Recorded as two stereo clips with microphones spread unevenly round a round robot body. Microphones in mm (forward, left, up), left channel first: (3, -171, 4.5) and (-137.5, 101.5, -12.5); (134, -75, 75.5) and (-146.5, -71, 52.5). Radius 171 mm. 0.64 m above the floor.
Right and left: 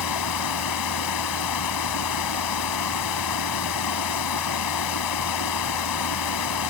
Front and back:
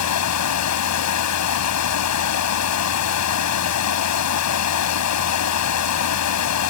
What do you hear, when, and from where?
0.0 s running water: 25° right